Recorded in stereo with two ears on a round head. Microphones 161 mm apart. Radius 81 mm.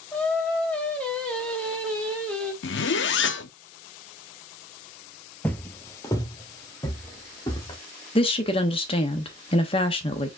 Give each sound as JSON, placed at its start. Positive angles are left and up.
{"t": 0.1, "sound": "singing", "side_deg": 5, "distance_m": 1.4}
{"t": 2.6, "sound": "a zipper", "side_deg": 70, "distance_m": 0.6}
{"t": 5.4, "sound": "footsteps", "side_deg": 10, "distance_m": 0.7}
{"t": 8.2, "sound": "a woman speaking", "side_deg": 30, "distance_m": 1.0}